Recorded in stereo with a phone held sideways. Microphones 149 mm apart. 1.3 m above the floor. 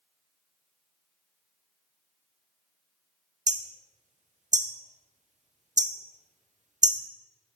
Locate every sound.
3.5 s hammering: 55° right (ahead or behind), 0.5 m